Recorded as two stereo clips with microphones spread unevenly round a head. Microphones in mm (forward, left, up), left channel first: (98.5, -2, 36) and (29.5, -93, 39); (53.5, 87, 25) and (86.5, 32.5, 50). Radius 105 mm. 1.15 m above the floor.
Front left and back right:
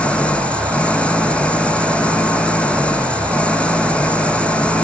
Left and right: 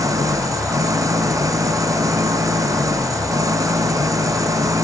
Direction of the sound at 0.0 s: 30° right.